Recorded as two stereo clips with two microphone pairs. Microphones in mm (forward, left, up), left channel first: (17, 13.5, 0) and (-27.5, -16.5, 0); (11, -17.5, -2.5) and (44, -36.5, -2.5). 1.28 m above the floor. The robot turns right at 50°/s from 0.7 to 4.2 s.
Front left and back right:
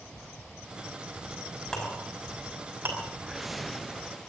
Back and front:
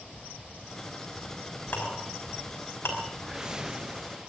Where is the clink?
110° left, 5.5 m; by 3.0 s straight behind, 5.5 m.